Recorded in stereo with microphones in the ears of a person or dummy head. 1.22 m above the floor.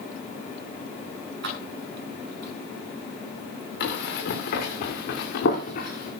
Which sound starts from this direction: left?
Running footsteps, at 3.8 s.